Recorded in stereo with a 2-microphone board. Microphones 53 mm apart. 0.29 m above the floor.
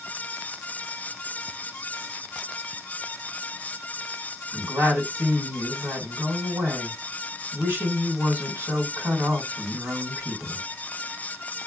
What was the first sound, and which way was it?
A woman speaking, 55° right (ahead or behind).